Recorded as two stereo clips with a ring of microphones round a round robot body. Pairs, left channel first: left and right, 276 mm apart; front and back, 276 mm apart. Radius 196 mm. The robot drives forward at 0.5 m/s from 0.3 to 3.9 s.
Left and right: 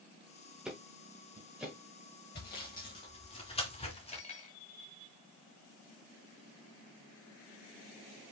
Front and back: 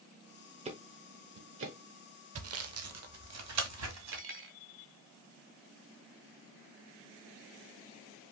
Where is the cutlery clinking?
155° left, 0.8 m.